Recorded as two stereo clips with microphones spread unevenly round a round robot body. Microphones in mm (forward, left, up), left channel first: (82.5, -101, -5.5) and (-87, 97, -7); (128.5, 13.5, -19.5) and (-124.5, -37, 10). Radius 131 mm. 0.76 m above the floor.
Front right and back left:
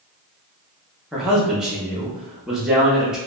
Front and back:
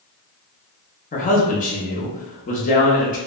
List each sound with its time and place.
1.1 s a man speaking: 45° left, 0.7 m